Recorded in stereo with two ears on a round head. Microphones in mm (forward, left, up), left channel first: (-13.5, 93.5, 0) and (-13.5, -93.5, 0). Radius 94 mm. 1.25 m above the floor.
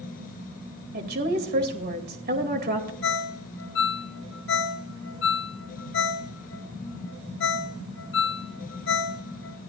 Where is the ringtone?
55° left (ahead or behind), 0.9 m.